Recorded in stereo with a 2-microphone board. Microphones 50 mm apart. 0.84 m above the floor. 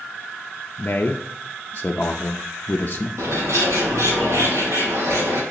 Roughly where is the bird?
Right.